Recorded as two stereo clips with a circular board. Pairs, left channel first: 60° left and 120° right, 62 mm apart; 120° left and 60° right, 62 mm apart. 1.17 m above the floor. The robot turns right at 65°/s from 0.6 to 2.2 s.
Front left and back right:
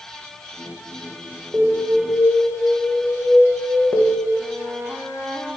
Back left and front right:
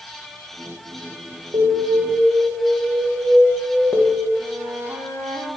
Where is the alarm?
50° right, 1.8 m; by 4.3 s 5° right, 1.8 m.